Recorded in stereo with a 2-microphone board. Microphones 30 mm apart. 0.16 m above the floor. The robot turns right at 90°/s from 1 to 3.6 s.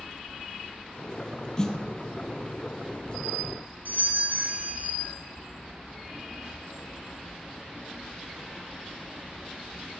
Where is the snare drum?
20° left (ahead or behind), 1.3 m; by 1.8 s 5° left (ahead or behind), 1.3 m.